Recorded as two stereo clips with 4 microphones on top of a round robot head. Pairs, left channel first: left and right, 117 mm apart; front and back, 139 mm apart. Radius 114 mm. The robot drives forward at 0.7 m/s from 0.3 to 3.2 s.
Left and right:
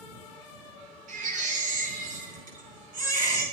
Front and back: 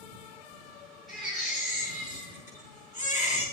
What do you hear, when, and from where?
1.1 s a baby crying: 90° right, 4.5 m; by 3.5 s 105° right, 5 m